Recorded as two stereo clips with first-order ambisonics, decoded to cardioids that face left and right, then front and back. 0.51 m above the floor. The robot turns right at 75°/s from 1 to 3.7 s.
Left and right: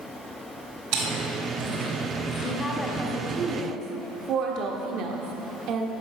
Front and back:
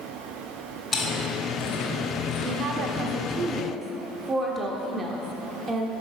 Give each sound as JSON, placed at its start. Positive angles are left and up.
{"t": 0.9, "sound": "chewing", "azimuth_deg": -85, "distance_m": 2.5}
{"t": 2.4, "sound": "a woman speaking", "azimuth_deg": 155, "distance_m": 1.0}